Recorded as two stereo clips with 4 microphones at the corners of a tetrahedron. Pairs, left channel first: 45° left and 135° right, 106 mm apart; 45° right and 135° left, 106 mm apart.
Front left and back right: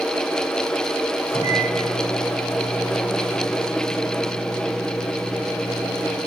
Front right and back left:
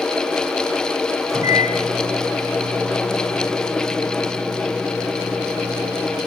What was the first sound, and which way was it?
A microwave, 80° left.